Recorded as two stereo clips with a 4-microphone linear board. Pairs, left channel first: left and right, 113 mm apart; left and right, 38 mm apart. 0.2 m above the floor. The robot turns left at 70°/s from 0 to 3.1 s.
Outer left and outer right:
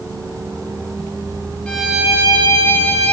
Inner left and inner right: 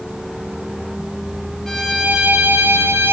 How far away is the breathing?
No breathing in this recording.